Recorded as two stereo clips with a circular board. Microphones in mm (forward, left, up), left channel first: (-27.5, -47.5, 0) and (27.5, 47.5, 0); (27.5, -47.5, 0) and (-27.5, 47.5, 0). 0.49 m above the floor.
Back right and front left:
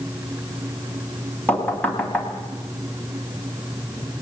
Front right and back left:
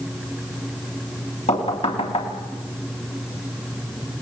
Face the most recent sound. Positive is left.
turn(degrees=-45)